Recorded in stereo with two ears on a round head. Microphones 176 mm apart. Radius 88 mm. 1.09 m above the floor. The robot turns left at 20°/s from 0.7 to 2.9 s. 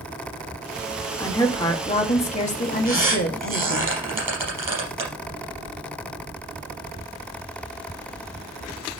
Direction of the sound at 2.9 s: 15° right (ahead or behind).